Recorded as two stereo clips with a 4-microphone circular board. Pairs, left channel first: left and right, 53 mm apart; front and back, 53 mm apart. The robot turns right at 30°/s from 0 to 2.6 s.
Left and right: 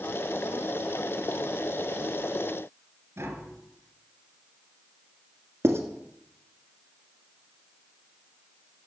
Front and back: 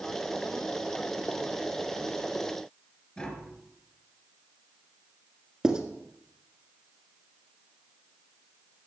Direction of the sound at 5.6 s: 110° right.